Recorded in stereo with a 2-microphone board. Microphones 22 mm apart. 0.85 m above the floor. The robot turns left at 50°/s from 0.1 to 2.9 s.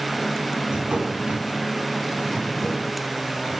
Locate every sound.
0.7 s a drawer: 90° right, 2.5 m; by 2.9 s 160° left, 2.5 m